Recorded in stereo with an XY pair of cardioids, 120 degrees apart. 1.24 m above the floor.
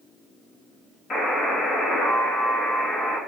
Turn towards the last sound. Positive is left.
turn(degrees=35)